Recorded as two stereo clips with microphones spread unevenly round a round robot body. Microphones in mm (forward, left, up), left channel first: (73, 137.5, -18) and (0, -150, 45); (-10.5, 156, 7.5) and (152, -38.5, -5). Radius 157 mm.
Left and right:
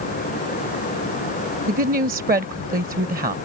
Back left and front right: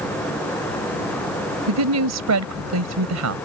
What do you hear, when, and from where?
1.7 s a woman speaking: 40° right